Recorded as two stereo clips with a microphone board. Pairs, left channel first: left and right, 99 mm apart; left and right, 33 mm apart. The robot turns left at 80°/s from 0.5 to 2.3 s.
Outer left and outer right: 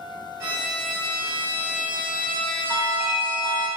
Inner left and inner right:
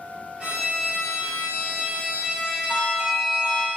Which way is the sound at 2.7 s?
45° right (ahead or behind).